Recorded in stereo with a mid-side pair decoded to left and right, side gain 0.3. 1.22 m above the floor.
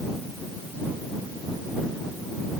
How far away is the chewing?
No chewing in this recording.